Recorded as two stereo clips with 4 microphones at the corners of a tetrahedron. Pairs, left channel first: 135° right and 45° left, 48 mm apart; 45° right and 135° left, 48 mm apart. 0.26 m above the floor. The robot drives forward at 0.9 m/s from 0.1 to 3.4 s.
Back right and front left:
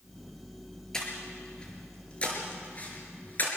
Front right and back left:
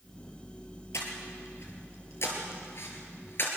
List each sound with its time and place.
0.9 s breathing: 55° right, 5 m; by 3.5 s 85° right, 4.5 m